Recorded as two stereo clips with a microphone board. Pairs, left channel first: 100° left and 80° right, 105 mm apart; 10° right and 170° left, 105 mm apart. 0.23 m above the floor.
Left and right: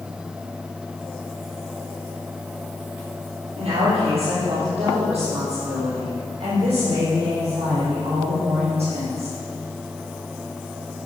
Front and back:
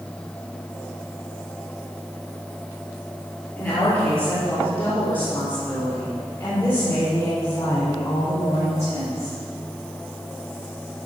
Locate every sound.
3.6 s a woman speaking: 70° right, 5 m; by 9.4 s 65° right, 8.5 m